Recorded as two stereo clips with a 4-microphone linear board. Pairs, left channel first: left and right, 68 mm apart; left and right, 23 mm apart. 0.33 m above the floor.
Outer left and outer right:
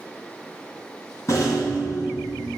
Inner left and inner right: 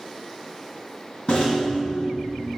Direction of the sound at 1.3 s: 50° left (ahead or behind).